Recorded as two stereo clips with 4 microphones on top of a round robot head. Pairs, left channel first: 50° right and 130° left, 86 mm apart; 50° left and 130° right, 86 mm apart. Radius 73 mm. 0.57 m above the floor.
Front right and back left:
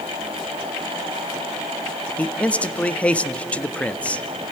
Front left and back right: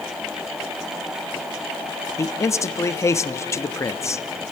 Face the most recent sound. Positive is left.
turn(degrees=20)